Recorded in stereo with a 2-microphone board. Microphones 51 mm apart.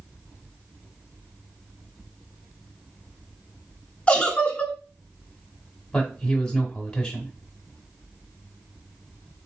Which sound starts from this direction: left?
A giggle, at 4.1 s.